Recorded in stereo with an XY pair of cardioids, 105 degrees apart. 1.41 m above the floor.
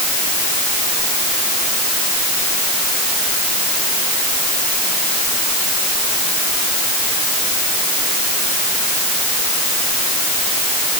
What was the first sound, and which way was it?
Only background noise.